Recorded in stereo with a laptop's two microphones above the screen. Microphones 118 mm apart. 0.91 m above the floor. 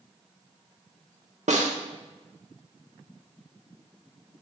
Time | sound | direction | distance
1.5 | a snare drum | 90° right | 1.0 m